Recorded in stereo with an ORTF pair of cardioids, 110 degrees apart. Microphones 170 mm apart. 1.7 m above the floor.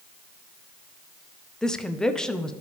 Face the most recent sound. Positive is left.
turn(degrees=5)